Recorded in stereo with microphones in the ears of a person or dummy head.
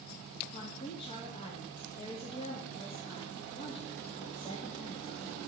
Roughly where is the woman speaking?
Left.